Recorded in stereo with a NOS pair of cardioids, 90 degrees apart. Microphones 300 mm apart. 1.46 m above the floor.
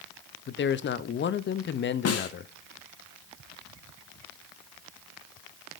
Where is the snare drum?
50° left, 1.3 m.